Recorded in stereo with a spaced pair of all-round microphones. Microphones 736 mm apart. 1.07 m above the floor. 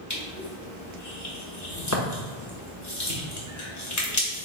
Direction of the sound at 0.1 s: 25° left (ahead or behind).